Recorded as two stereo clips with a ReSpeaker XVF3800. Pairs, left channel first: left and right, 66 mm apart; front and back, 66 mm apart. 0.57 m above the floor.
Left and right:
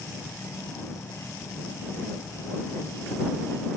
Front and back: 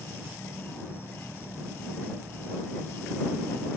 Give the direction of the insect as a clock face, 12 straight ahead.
10 o'clock.